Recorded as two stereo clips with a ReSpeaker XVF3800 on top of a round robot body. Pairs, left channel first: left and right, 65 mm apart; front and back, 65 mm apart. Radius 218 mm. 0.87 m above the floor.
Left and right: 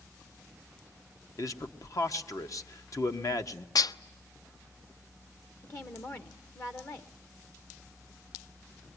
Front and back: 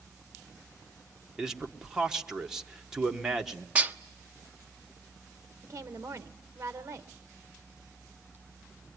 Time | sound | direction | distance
1.4 | a man speaking | 100° left | 1.7 m
3.8 | dishes clattering | 115° left | 0.5 m
5.6 | a woman speaking | 130° left | 1.1 m